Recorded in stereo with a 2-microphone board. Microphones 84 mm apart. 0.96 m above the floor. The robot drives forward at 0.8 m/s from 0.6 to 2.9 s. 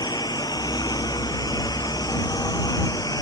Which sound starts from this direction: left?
A lawn mower, at 0.0 s.